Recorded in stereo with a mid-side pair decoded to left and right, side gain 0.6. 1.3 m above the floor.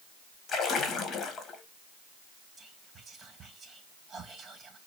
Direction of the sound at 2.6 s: 30° right.